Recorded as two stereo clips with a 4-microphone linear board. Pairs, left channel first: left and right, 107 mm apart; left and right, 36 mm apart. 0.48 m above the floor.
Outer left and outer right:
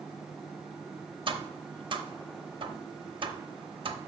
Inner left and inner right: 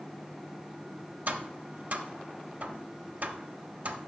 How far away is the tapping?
About 0.6 m.